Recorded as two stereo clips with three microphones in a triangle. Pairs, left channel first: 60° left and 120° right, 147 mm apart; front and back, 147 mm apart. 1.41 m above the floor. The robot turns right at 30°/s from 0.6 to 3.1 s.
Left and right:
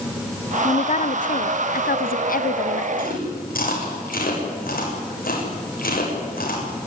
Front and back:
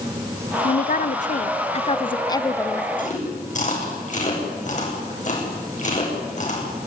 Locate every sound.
0.6 s a woman speaking: 15° left, 0.6 m; by 2.9 s 80° left, 0.6 m
3.0 s chewing: 35° left, 7 m